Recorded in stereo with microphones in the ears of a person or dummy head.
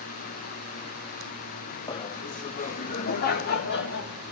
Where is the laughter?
20° left (ahead or behind), 0.6 m; by 4.1 s 50° left (ahead or behind), 2 m.